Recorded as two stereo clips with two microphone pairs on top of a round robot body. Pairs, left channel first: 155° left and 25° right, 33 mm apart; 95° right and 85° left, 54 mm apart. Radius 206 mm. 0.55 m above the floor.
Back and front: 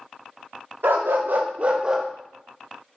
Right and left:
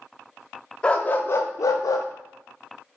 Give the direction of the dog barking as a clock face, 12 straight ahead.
1 o'clock.